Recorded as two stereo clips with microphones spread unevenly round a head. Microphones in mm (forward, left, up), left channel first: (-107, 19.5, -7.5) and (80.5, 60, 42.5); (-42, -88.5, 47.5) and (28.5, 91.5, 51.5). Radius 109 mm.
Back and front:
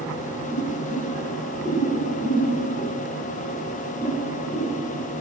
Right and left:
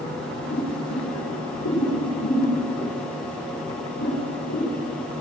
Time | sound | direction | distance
0.5 | boiling | 90° right | 7.5 m